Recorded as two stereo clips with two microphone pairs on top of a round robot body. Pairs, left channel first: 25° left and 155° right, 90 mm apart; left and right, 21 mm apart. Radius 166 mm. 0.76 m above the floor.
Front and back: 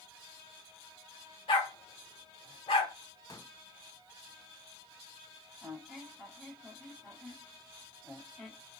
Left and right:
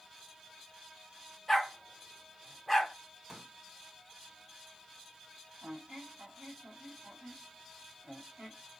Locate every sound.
1.5 s a dog barking: straight ahead, 1.6 m
3.3 s a pop: 25° right, 2.5 m
5.6 s a squeak: 65° right, 1.6 m